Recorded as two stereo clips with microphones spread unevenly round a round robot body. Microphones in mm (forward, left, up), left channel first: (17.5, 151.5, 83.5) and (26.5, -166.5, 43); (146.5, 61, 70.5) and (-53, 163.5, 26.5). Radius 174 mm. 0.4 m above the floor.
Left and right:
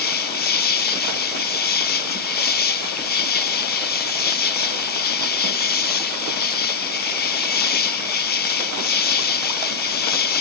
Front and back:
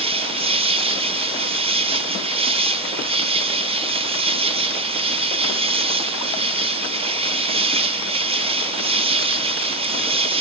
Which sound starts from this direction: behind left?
An insect, at 0.0 s.